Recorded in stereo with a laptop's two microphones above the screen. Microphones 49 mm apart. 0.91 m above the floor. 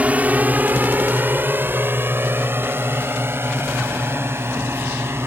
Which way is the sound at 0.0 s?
30° right (ahead or behind).